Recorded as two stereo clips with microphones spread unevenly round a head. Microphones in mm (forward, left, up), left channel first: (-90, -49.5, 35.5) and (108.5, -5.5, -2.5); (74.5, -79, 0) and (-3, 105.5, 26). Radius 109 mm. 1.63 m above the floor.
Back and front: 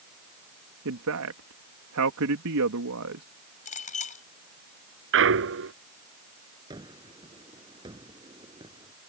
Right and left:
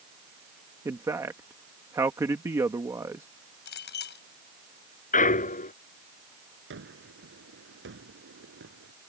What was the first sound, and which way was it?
A man speaking, 40° left.